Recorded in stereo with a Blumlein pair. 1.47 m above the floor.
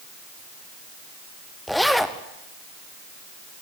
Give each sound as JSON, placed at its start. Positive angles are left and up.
{"t": 1.7, "sound": "a zipper", "azimuth_deg": 0, "distance_m": 1.4}